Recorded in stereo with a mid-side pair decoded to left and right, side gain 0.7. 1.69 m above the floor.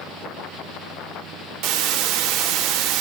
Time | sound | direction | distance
1.6 | a hiss | 60° right | 3 m